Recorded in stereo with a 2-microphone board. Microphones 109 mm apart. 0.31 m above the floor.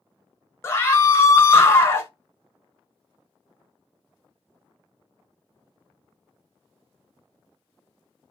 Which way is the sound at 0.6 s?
25° left (ahead or behind).